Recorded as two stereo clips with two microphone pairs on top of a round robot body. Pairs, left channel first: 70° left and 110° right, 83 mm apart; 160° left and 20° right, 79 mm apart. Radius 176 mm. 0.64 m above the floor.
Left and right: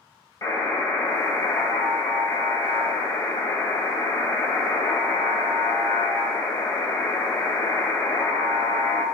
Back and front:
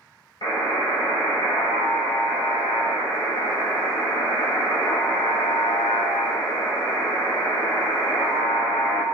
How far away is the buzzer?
About 1.7 m.